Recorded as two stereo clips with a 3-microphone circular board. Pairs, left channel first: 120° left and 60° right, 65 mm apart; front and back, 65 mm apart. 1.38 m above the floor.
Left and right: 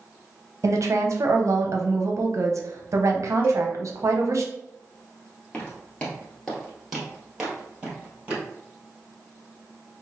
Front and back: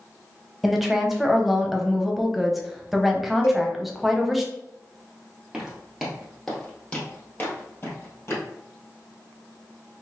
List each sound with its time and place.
0.6 s a woman speaking: 90° right, 0.6 m
3.4 s a cowbell: 15° right, 1.4 m
5.5 s footsteps: 130° left, 1.4 m; by 8.4 s straight ahead, 1.9 m